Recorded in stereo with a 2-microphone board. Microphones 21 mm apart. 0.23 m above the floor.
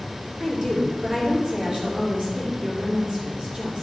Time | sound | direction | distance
0.4 | a woman speaking | 45° right (ahead or behind) | 3.5 m